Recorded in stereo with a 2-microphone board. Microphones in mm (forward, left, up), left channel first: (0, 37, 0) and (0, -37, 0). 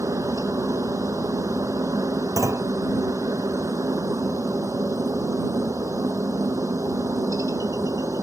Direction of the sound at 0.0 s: 50° right (ahead or behind).